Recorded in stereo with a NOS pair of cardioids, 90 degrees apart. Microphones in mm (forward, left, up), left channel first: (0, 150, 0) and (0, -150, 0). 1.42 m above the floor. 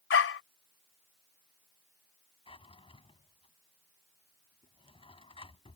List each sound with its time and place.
0.1 s a dog barking: 45° left
2.5 s a drawer: 15° left